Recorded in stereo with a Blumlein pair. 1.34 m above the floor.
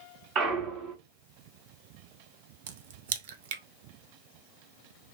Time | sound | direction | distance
0.3 | a clunk | 30° right | 1.3 m
2.7 | a crack | 55° right | 0.5 m